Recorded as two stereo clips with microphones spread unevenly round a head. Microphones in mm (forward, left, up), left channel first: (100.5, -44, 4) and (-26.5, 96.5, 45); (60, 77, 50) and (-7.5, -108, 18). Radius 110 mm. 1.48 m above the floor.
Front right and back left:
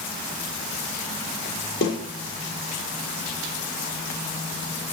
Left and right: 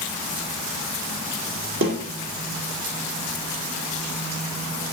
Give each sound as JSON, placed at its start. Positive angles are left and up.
{"t": 1.8, "sound": "a snare drum", "azimuth_deg": -95, "distance_m": 6.5}